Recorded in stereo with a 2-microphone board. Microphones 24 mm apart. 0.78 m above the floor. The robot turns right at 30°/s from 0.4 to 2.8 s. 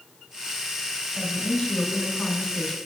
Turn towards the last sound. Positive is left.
turn(degrees=150)